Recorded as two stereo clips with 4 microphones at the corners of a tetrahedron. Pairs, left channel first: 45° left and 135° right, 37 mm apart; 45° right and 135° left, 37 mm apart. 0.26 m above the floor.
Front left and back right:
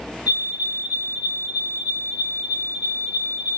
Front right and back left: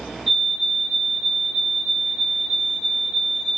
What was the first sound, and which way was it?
A fire alarm, 130° right.